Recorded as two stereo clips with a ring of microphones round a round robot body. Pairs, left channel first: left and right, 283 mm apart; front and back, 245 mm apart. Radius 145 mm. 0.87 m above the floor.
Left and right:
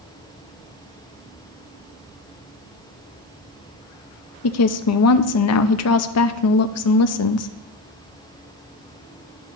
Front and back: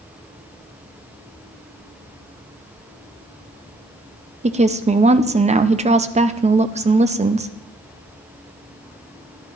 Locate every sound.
4.4 s a woman speaking: 115° left, 0.6 m